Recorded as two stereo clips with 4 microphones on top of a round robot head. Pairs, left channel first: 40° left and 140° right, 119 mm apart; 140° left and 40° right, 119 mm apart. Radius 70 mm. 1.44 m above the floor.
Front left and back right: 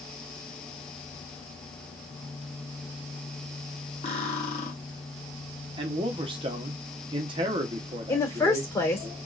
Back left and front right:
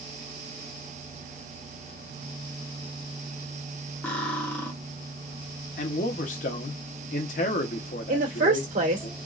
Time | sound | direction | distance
4.0 | cutlery clinking | 65° left | 1.0 m
5.8 | a man speaking | 165° left | 0.9 m
8.1 | a woman speaking | 30° right | 1.5 m